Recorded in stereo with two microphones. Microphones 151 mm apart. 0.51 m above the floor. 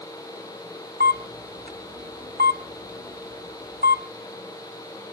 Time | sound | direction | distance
1.0 | a camera shutter | 80° right | 1.9 m